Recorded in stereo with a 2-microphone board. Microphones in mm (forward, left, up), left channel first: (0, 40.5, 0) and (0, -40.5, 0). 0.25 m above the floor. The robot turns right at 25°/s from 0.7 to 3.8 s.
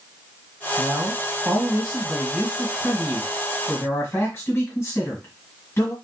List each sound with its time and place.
0.8 s a man speaking: 25° right, 1.6 m; by 5.9 s 50° left, 1.6 m